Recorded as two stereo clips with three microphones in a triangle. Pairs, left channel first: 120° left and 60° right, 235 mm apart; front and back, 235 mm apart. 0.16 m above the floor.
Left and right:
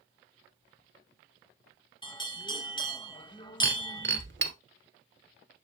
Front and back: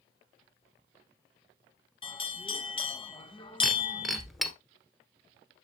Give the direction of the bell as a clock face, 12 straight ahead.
10 o'clock.